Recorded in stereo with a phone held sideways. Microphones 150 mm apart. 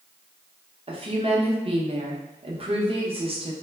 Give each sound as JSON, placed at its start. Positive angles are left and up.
{"t": 0.9, "sound": "a woman speaking", "side_deg": -40, "distance_m": 0.6}